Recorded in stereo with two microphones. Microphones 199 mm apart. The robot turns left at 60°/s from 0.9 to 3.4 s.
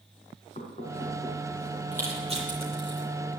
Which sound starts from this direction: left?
Knocking, at 0.6 s.